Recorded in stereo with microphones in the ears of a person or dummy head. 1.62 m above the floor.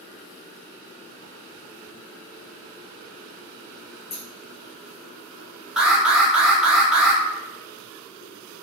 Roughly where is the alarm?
Centre.